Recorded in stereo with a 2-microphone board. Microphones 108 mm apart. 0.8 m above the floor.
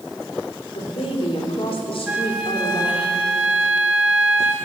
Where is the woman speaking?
65° left (ahead or behind), 3 m.